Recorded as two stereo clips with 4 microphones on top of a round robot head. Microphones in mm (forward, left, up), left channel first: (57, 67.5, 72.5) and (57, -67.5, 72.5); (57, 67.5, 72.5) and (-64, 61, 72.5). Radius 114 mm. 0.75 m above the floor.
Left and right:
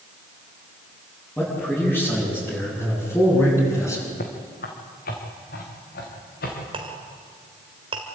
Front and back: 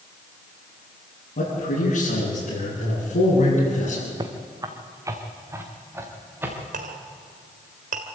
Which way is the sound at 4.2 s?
130° left.